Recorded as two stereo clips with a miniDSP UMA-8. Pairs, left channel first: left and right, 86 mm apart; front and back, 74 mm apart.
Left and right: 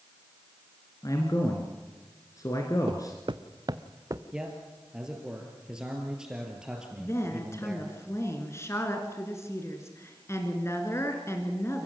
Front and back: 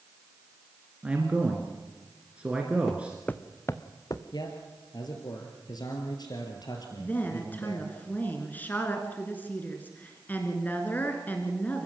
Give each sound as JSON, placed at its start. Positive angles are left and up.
{"t": 1.0, "sound": "a man speaking", "azimuth_deg": 110, "distance_m": 1.9}
{"t": 2.9, "sound": "footsteps", "azimuth_deg": -85, "distance_m": 1.0}
{"t": 4.3, "sound": "a man speaking", "azimuth_deg": -10, "distance_m": 2.5}
{"t": 7.0, "sound": "a woman speaking", "azimuth_deg": 55, "distance_m": 2.0}